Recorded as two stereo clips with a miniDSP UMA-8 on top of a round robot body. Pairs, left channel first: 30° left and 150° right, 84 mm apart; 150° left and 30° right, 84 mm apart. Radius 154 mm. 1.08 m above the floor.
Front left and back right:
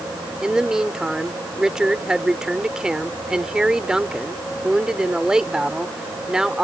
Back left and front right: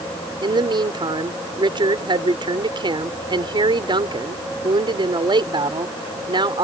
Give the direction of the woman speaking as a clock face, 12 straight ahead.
2 o'clock.